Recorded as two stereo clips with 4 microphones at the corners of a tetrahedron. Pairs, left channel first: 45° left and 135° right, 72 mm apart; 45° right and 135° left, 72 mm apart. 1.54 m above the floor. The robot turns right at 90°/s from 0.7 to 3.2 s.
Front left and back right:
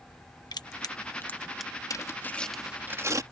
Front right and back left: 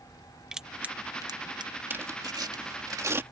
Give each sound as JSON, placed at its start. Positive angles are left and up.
{"t": 0.5, "sound": "crushing", "azimuth_deg": 55}
{"t": 1.9, "sound": "tearing paper", "azimuth_deg": 75}